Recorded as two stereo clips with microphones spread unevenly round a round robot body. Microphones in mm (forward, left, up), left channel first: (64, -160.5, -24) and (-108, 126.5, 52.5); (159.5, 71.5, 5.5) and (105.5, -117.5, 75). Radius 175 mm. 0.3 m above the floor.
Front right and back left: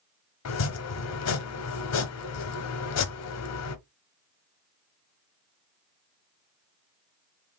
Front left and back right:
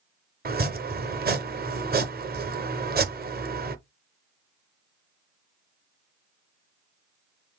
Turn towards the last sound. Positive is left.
turn(degrees=-50)